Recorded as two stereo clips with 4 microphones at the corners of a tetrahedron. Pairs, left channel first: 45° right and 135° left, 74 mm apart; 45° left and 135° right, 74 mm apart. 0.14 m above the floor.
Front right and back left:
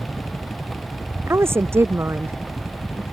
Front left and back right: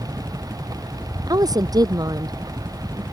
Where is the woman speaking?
170° right.